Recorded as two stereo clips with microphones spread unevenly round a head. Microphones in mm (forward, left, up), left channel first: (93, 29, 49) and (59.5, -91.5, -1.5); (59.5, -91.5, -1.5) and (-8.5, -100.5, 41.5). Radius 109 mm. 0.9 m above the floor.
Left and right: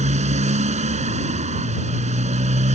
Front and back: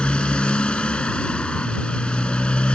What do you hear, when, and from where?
0.0 s a motorcycle: 70° right